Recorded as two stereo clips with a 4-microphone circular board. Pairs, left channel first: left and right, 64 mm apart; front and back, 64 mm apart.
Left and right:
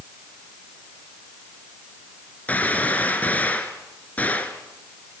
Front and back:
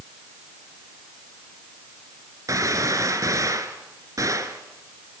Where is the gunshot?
155° left, 1.7 m.